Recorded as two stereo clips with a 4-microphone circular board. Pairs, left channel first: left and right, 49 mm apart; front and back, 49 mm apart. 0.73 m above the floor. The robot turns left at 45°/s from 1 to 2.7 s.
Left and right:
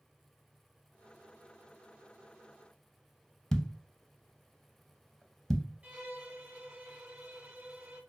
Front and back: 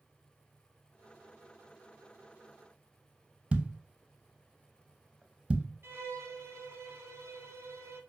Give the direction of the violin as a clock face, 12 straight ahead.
5 o'clock.